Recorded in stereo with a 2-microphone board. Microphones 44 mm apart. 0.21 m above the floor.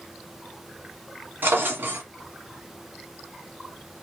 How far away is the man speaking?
No man speaking in this recording.